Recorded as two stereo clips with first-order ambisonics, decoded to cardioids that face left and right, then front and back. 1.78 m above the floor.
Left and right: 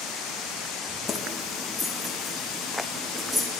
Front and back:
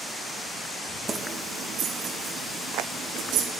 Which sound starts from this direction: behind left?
Keys jangling, at 1.1 s.